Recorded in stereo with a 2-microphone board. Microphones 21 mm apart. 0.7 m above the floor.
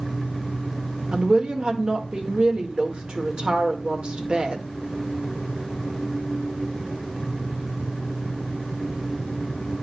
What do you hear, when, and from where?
1.1 s a woman speaking: 55° right (ahead or behind), 1.7 m